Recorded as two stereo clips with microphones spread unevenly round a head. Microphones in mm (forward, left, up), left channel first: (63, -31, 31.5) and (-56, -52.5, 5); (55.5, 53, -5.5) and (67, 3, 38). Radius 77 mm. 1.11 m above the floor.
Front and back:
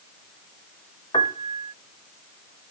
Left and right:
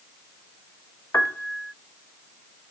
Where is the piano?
75° left.